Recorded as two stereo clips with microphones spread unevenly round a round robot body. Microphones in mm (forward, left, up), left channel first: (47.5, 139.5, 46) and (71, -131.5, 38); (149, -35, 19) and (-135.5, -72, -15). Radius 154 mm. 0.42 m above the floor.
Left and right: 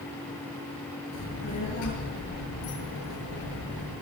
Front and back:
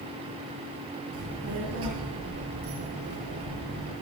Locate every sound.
1.1 s a child speaking: 140° left, 6.5 m